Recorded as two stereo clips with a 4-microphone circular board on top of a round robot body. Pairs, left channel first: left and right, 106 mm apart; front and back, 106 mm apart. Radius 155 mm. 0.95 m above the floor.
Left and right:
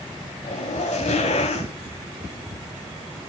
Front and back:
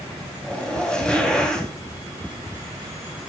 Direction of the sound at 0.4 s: 80° left.